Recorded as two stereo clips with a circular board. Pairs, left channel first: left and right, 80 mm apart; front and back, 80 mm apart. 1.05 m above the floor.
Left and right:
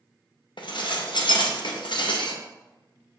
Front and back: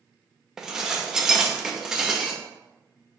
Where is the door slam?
No door slam in this recording.